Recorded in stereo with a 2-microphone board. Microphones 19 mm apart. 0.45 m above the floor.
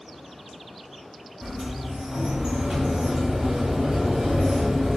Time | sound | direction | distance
1.4 | a sliding door | 40° right (ahead or behind) | 0.9 m